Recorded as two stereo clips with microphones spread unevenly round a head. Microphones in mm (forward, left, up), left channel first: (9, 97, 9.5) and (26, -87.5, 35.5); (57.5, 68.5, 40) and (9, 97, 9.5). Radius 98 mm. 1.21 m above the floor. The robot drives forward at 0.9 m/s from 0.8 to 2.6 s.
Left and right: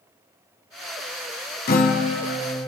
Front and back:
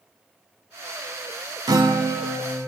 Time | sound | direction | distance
1.7 | a guitar | 140° left | 1.0 m